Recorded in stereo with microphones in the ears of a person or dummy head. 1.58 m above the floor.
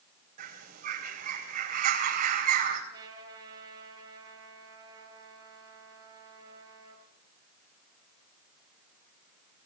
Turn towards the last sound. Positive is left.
turn(degrees=-15)  # may be behind; listen again after turning